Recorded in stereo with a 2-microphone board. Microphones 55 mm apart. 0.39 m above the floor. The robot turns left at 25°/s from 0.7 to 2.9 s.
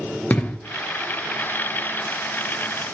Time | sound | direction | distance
0.3 | an explosion | 30° left (ahead or behind) | 0.9 m